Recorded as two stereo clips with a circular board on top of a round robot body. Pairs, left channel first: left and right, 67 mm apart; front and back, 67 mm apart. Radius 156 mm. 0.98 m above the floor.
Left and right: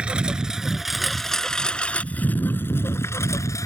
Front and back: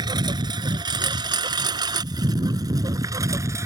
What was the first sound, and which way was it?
A lawn mower, 165° right.